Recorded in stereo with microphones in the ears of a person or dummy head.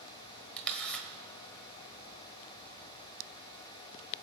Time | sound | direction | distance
0.6 | a camera shutter | 10° left (ahead or behind) | 1.4 m